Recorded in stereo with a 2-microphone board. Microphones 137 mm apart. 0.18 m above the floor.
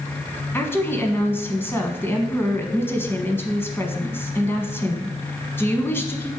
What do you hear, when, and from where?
0.5 s a woman speaking: 15° left (ahead or behind), 1.3 m